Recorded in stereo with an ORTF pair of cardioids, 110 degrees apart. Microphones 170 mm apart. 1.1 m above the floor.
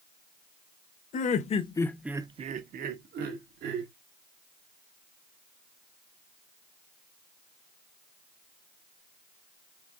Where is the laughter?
50° left, 1.1 m; by 3.9 s 80° right, 2 m.